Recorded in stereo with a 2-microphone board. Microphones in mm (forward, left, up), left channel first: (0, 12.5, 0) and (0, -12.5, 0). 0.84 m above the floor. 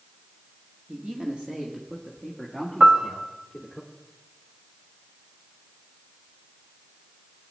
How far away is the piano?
About 1.1 m.